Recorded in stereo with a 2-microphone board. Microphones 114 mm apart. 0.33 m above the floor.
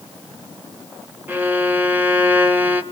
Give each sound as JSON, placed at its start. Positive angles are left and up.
{"t": 1.3, "sound": "a violin", "side_deg": -15, "distance_m": 1.3}